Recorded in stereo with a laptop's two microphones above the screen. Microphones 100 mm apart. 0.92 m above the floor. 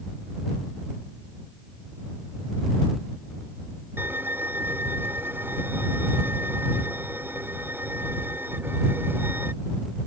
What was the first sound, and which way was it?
A violin, 20° right (ahead or behind).